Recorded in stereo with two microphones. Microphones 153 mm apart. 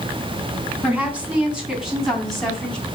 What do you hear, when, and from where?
0.8 s a woman speaking: 10° right (ahead or behind), 3.5 m; by 2.8 s 5° left (ahead or behind), 3 m